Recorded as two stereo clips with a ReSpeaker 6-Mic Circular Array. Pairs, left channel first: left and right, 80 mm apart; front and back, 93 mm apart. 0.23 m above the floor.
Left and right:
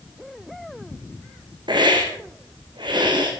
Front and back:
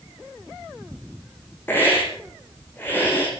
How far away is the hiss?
About 5 m.